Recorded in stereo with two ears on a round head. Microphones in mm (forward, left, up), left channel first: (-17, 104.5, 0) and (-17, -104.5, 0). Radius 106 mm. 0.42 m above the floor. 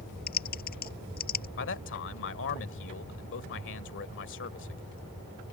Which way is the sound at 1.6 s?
55° left (ahead or behind).